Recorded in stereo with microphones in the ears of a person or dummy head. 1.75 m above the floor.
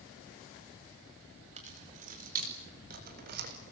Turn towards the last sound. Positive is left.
turn(degrees=-50)  # may be behind; listen again after turning